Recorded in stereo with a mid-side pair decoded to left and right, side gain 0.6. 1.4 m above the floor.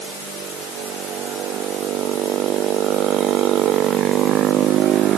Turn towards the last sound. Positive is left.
No sound to turn to.